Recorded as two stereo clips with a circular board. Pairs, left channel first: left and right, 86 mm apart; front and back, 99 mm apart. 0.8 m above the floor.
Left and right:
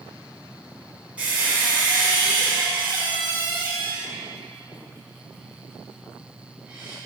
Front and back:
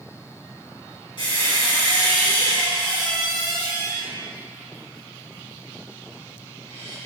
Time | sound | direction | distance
1.2 | a squeak | 15° right | 1.7 m